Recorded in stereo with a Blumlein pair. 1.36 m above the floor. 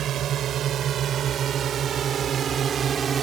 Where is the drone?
30° right; by 3.2 s 20° right.